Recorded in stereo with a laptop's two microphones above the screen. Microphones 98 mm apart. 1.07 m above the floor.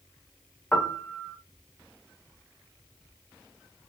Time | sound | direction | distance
0.7 | a piano | 15° left (ahead or behind) | 0.7 m